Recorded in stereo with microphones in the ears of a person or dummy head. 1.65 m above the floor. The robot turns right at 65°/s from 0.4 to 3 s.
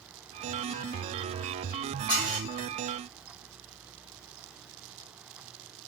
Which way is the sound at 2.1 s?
30° right (ahead or behind).